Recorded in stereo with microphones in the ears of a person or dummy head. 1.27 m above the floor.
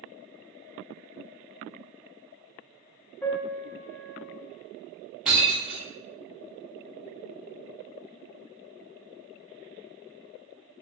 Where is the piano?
5° left (ahead or behind), 0.6 m.